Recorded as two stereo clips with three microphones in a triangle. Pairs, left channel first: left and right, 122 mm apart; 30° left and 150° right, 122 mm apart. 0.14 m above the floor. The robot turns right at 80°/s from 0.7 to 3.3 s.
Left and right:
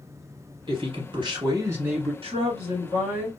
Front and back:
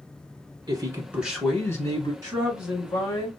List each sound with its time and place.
0.7 s a man speaking: 110° right, 1.4 m; by 2.1 s straight ahead, 1.4 m
2.2 s a woman speaking: 90° right, 1.2 m; by 3.3 s 5° right, 1.2 m